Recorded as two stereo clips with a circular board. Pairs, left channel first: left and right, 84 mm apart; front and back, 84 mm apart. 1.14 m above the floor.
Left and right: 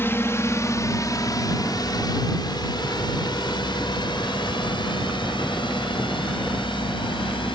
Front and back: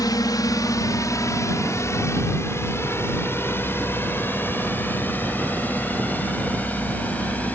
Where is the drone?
30° left; by 7.6 s 75° left.